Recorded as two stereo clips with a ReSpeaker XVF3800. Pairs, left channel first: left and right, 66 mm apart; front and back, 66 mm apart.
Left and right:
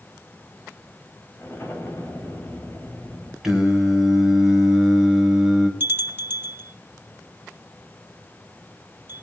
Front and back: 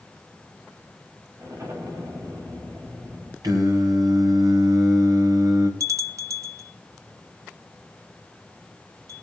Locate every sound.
1.4 s an explosion: 145° left, 4 m
3.4 s singing: 175° right, 3.5 m
5.8 s a bell: 145° right, 1.0 m